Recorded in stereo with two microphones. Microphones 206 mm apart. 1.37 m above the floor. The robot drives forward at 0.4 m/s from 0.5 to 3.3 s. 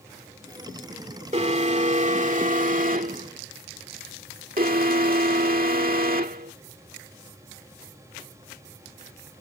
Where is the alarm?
35° right (ahead or behind); by 6.5 s 45° right (ahead or behind).